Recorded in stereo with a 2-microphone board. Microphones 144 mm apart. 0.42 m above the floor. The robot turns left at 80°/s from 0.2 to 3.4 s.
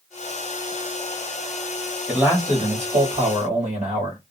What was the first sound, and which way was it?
A man speaking, 5° right.